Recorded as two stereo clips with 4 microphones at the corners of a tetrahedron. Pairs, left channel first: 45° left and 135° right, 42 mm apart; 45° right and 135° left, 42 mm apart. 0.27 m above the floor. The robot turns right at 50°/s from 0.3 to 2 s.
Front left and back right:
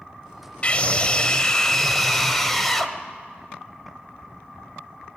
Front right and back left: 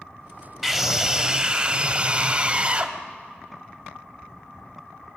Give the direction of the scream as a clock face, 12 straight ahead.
10 o'clock.